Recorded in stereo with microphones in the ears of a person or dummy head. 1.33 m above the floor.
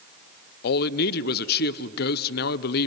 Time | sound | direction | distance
0.6 | a man speaking | 55° left (ahead or behind) | 0.5 m